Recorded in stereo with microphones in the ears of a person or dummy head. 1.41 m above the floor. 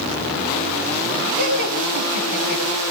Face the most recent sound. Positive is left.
turn(degrees=50)  # may be behind; listen again after turning